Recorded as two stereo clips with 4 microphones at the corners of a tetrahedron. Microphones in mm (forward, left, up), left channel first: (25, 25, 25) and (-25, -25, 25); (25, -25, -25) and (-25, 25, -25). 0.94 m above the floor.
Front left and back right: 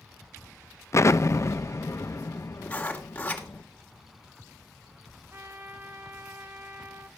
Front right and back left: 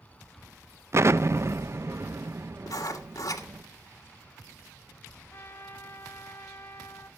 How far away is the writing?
About 2.5 m.